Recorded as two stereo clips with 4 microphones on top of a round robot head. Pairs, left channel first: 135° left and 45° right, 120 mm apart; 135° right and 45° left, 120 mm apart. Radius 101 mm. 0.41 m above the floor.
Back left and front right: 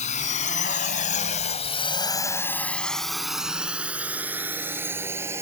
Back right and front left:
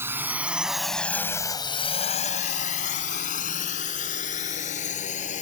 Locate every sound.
0.0 s a drone: 115° left; by 5.4 s 115° right